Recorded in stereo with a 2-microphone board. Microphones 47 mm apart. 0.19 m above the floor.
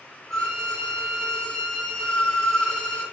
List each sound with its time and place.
0.3 s a violin: 15° left (ahead or behind), 1.3 m